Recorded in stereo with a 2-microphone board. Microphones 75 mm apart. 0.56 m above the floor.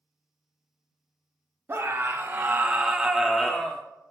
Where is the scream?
35° right (ahead or behind), 1.0 m; by 3.8 s 15° left (ahead or behind), 0.8 m.